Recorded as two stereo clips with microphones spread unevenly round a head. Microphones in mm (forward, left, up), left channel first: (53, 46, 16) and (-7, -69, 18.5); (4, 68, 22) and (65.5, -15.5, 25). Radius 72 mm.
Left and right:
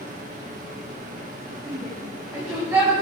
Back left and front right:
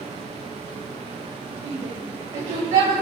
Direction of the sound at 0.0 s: 100° right.